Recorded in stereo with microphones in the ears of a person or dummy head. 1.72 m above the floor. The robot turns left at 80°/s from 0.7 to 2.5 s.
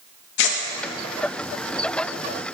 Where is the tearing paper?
65° left (ahead or behind), 0.5 m.